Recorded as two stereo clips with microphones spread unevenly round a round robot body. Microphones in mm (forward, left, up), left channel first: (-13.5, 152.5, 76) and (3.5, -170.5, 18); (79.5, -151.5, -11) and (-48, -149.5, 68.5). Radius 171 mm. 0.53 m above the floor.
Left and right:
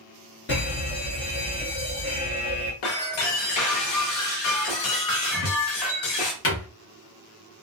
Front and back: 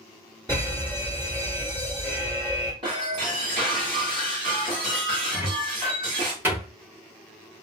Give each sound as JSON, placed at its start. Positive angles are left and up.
{"t": 0.5, "sound": "a fire alarm", "azimuth_deg": 70, "distance_m": 1.6}
{"t": 2.8, "sound": "breaking glass", "azimuth_deg": 105, "distance_m": 0.9}
{"t": 5.3, "sound": "a cupboard door", "azimuth_deg": 55, "distance_m": 1.1}